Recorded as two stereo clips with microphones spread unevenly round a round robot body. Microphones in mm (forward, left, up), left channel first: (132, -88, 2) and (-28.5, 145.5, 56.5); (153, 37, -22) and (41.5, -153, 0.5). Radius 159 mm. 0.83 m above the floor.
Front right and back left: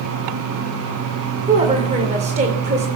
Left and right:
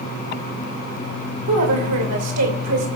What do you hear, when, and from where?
1.5 s a woman speaking: 165° right, 2.5 m